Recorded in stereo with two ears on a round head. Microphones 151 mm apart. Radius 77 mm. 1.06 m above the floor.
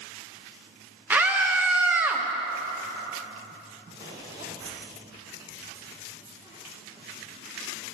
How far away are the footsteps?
About 3.5 m.